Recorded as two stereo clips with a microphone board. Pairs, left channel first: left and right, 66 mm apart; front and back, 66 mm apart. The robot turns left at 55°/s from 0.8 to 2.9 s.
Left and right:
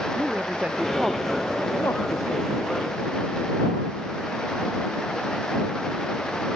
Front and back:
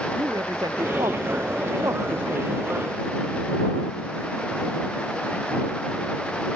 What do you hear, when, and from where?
0.1 s a man speaking: 160° right; by 2.6 s 100° left